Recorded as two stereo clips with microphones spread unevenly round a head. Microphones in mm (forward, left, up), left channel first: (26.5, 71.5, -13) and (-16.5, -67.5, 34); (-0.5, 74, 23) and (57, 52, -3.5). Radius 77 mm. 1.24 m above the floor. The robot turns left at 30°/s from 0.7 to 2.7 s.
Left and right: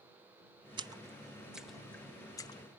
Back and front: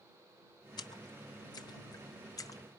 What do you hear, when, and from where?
0.8 s a splash: 170° right; by 2.6 s 135° left